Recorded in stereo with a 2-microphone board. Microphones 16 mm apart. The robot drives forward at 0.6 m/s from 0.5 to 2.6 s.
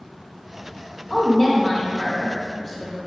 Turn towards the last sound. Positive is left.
turn(degrees=5)  # may be behind; listen again after turning